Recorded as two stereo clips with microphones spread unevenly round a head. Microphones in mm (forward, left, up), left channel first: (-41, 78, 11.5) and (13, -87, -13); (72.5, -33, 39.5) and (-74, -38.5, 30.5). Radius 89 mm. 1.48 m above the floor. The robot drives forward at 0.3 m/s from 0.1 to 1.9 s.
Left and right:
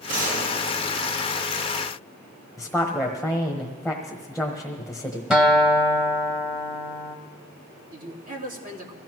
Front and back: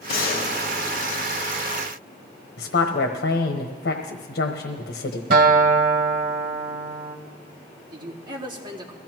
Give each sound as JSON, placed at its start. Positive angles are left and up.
{"t": 0.1, "sound": "a gunshot", "azimuth_deg": -20, "distance_m": 2.0}
{"t": 2.6, "sound": "a woman speaking", "azimuth_deg": 20, "distance_m": 1.1}
{"t": 5.3, "sound": "a guitar", "azimuth_deg": -165, "distance_m": 1.9}
{"t": 7.9, "sound": "a man speaking", "azimuth_deg": -115, "distance_m": 3.0}